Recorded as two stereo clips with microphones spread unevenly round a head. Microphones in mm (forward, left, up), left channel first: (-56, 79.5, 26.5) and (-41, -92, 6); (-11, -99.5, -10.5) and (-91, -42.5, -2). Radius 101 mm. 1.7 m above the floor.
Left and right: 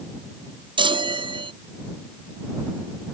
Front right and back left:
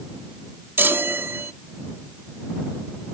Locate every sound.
0.8 s a chime: 150° right